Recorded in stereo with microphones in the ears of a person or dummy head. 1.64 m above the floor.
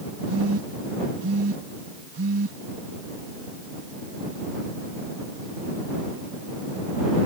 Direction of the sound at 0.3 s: 85° right.